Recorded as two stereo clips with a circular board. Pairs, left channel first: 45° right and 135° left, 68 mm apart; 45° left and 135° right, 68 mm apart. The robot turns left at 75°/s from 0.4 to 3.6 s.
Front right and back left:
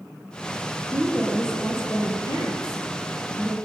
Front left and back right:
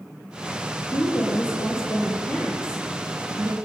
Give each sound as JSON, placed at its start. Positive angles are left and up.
{"t": 0.9, "sound": "a woman speaking", "azimuth_deg": 75, "distance_m": 5.5}